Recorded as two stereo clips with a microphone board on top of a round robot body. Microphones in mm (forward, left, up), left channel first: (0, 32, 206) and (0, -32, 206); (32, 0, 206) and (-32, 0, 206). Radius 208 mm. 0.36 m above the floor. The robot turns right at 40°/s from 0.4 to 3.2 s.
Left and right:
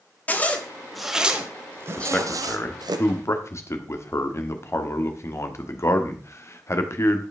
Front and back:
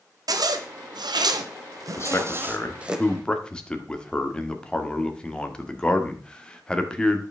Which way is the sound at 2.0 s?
25° left.